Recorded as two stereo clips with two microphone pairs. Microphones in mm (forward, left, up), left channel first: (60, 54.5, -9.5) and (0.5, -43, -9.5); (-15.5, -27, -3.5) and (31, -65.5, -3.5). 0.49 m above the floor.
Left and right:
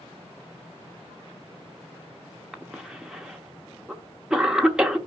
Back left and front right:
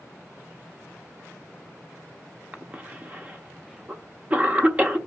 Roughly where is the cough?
Ahead right.